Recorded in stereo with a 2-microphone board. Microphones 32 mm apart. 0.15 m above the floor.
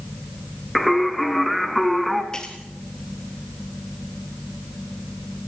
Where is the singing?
Centre (ahead or behind), 1.4 m.